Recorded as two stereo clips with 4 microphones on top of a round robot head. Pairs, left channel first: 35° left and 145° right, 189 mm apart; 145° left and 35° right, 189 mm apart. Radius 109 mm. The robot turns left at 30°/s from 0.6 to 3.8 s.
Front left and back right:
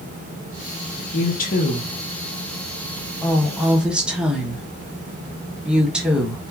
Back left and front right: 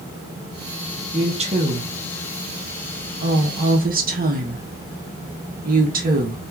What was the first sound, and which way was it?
A woman speaking, 20° left.